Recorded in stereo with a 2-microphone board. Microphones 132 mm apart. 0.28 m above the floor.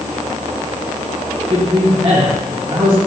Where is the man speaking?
40° right (ahead or behind), 1.9 m.